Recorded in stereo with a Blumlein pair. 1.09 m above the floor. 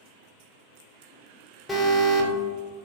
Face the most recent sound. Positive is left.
turn(degrees=10)